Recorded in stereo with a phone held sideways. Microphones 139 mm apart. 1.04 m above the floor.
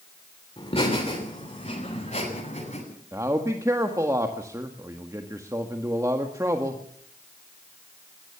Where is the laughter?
40° left (ahead or behind), 3.5 m; by 2.8 s 60° left (ahead or behind), 6.5 m.